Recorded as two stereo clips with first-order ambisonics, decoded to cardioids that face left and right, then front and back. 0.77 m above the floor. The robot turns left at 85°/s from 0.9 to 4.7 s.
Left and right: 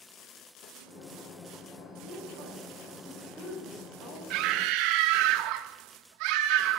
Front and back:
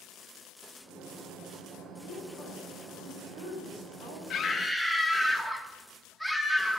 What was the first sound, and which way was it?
A woman speaking, 40° right.